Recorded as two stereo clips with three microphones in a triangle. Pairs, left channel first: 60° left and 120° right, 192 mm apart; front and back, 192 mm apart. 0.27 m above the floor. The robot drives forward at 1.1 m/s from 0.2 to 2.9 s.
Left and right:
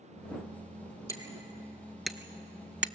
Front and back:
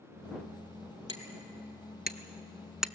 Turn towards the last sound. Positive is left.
turn(degrees=-100)